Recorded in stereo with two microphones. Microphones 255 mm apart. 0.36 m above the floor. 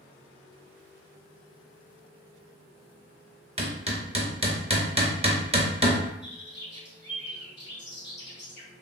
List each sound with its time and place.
3.6 s hammering: 25° right (ahead or behind), 0.6 m
6.2 s a bird: 45° left (ahead or behind), 1.1 m